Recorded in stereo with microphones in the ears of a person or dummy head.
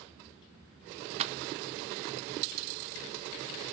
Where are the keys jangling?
40° right (ahead or behind), 0.6 m; by 2.2 s 20° right (ahead or behind), 2.0 m.